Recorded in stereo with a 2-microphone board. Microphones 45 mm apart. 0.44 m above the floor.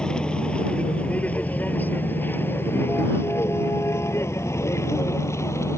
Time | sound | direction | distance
0.0 | a vehicle | 15° left (ahead or behind) | ?